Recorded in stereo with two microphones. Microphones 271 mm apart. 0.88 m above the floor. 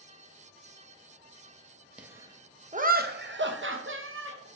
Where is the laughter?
5° right (ahead or behind), 0.9 m; by 4.5 s 50° right (ahead or behind), 1.4 m.